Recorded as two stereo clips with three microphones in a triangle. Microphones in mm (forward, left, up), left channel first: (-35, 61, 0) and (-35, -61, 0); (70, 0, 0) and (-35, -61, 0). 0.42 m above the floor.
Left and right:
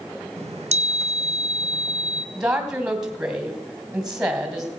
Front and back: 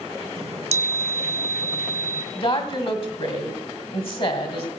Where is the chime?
120° right, 0.8 m.